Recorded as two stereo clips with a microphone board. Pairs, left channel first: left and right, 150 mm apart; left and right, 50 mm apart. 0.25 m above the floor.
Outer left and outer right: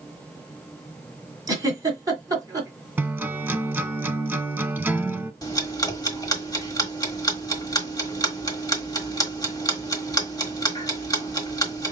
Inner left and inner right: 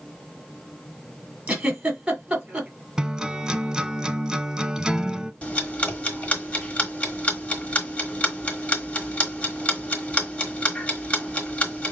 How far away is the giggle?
About 1.8 m.